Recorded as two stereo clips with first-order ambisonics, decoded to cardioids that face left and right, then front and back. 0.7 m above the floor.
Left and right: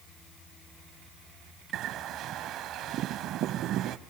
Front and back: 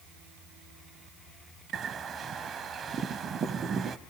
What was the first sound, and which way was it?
A bird, 125° right.